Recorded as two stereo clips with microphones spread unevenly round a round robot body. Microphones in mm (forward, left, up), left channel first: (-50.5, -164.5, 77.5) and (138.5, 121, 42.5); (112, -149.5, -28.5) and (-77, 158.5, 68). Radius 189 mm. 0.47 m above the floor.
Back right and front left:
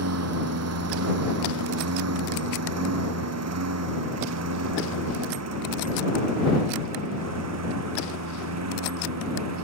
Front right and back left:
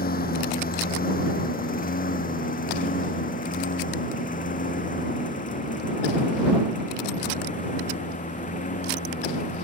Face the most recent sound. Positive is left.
turn(degrees=15)